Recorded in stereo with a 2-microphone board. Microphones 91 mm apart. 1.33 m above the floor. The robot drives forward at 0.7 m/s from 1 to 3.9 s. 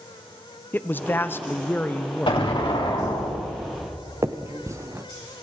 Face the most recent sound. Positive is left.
turn(degrees=-35)  # may be behind; listen again after turning